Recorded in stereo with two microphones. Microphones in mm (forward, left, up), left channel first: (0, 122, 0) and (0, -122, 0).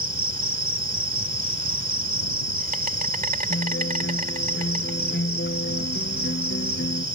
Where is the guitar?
45° left (ahead or behind).